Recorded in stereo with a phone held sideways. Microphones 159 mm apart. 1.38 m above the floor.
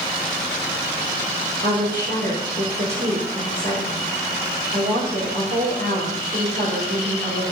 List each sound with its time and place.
1.6 s a woman speaking: 75° right (ahead or behind), 3.5 m